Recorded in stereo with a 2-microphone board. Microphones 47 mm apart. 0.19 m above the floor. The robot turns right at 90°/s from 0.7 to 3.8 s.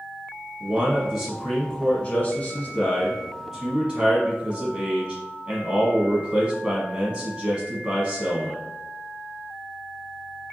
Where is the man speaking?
60° right, 1.3 m; by 8.7 s 140° right, 1.3 m.